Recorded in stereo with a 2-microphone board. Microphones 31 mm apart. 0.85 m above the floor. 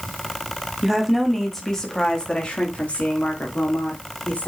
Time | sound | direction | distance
0.8 | a woman speaking | 10° right (ahead or behind) | 1.9 m